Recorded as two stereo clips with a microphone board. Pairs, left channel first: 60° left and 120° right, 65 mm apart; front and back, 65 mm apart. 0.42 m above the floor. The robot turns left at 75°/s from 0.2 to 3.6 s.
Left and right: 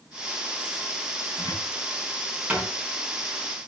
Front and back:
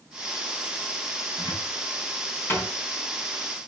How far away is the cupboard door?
About 4 m.